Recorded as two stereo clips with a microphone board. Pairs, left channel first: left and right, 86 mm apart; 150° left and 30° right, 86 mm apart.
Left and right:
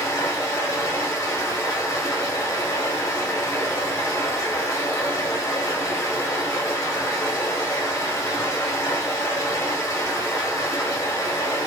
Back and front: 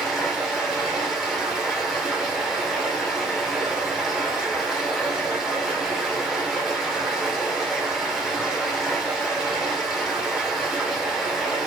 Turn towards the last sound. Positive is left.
turn(degrees=55)